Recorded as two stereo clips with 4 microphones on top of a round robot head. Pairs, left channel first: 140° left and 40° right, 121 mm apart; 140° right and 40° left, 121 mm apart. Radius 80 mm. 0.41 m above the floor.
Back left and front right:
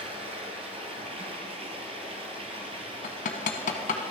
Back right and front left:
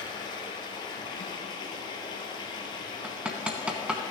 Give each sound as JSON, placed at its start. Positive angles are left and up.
{"t": 0.0, "sound": "running water", "azimuth_deg": -85, "distance_m": 1.6}
{"t": 3.0, "sound": "hammering", "azimuth_deg": 120, "distance_m": 1.0}